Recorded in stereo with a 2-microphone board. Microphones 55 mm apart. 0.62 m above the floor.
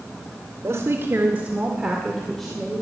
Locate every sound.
0.6 s a woman speaking: 55° right (ahead or behind), 2 m; by 2.8 s 15° left (ahead or behind), 3 m